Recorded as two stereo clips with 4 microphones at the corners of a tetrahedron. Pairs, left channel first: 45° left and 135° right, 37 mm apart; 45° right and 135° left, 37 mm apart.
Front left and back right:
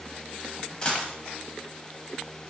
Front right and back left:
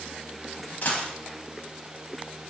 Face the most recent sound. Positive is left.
turn(degrees=-20)